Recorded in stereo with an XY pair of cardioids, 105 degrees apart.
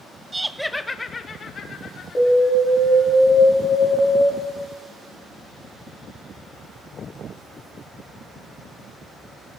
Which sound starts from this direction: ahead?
Laughter, at 0.3 s.